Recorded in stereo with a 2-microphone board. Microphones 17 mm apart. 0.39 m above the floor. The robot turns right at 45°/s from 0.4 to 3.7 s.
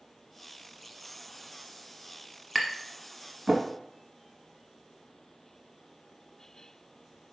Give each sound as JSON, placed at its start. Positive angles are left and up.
{"t": 2.5, "sound": "tapping", "side_deg": -5, "distance_m": 0.7}